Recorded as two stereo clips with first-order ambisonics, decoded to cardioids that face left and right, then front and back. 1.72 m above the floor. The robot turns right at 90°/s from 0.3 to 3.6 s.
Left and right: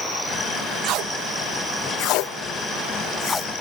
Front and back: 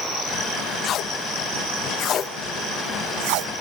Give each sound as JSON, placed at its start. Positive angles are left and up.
{"t": 0.8, "sound": "tape being pulled", "azimuth_deg": -60, "distance_m": 0.7}